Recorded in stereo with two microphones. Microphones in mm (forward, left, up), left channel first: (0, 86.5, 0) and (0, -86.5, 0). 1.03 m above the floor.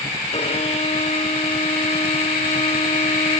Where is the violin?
40° left (ahead or behind), 1.4 m.